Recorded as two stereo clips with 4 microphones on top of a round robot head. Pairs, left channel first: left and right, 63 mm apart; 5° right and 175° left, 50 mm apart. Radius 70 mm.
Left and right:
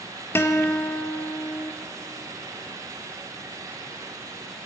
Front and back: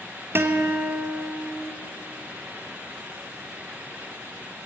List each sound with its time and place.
0.3 s a guitar: 140° left, 1.9 m